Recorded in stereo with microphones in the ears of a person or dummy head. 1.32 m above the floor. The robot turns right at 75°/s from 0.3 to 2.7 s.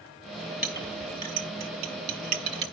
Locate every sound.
0.6 s a clink: 5° right (ahead or behind), 1.3 m; by 2.6 s 25° right (ahead or behind), 1.3 m